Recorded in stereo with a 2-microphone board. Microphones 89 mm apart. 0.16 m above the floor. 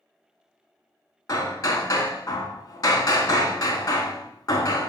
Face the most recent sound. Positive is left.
turn(degrees=40)  # may be behind; listen again after turning